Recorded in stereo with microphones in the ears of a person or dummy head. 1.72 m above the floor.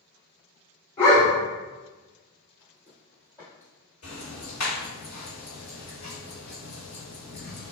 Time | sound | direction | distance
1.0 | a dog barking | 20° left (ahead or behind) | 1.6 m
2.6 | footsteps | 25° left (ahead or behind) | 2.0 m
4.0 | ticking | 55° left (ahead or behind) | 2.0 m